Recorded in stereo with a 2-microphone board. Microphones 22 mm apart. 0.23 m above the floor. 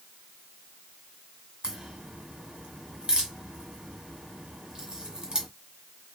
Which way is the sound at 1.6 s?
45° right (ahead or behind).